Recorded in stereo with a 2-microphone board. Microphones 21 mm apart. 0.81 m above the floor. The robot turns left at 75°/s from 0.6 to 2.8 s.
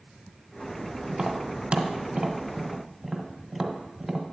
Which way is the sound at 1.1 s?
25° right (ahead or behind).